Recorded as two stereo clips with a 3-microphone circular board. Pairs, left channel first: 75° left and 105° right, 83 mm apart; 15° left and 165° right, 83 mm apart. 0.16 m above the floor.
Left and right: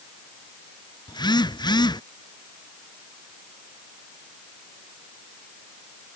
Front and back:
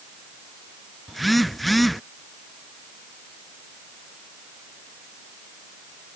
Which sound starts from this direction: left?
A phone buzzing, at 1.1 s.